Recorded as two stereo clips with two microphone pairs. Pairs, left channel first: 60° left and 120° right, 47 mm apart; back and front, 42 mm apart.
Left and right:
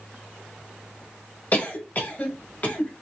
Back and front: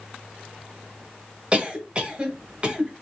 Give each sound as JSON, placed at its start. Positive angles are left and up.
{"t": 1.5, "sound": "a cough", "azimuth_deg": 50, "distance_m": 1.1}